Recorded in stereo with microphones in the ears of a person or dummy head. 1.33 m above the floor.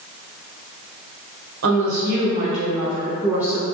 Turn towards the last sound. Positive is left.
turn(degrees=-5)  # may be behind; listen again after turning